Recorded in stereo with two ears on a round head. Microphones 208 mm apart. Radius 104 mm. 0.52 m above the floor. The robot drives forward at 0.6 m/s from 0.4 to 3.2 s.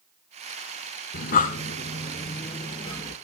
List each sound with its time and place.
1.1 s breathing: 45° left (ahead or behind), 1.0 m; by 3.1 s 20° left (ahead or behind), 2.0 m